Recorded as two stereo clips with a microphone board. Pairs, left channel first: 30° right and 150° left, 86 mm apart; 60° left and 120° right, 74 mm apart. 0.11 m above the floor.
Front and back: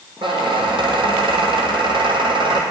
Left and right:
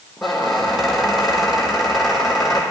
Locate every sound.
0.2 s a squeak: 150° left, 1.4 m